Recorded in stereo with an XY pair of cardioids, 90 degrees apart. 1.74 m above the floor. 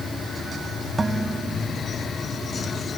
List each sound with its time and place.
1.0 s dishes clattering: 25° right